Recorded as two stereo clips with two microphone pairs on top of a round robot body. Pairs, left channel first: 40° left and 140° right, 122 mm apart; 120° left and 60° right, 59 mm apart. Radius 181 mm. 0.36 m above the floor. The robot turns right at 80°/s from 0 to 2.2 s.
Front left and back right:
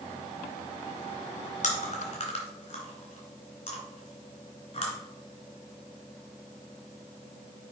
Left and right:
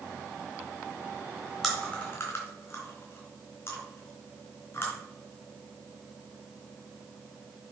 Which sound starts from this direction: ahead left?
Chewing, at 1.6 s.